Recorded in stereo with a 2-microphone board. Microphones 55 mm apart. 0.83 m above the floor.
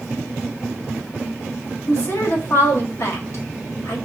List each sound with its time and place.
1.9 s a woman speaking: 60° left (ahead or behind), 1.2 m